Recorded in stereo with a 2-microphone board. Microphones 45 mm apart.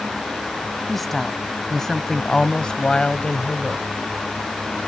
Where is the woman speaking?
Centre (ahead or behind); by 3.9 s 30° left (ahead or behind).